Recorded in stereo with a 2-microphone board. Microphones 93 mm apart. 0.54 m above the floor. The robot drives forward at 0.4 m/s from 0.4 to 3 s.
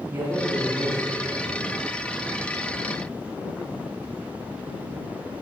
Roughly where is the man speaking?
Right.